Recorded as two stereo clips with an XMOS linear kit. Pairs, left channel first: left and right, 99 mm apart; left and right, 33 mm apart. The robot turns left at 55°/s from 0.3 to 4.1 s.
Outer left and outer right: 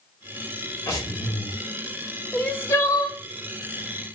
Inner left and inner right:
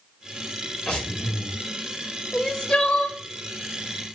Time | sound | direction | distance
0.9 | breathing | 145° left | 1.0 m
2.3 | crying | 170° left | 0.5 m